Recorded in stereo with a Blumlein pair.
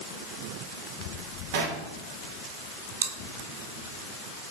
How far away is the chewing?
About 0.5 m.